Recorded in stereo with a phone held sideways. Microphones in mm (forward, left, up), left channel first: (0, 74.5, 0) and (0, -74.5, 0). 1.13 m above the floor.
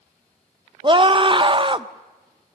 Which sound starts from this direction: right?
A scream, at 0.8 s.